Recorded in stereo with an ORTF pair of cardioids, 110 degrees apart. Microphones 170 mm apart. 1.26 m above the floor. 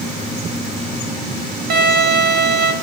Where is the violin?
70° right, 0.7 m.